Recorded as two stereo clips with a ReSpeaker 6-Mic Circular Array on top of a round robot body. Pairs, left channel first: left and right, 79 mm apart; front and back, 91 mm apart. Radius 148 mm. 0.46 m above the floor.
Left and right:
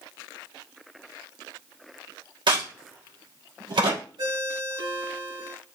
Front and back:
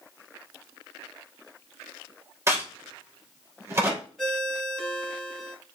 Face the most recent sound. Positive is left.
turn(degrees=-85)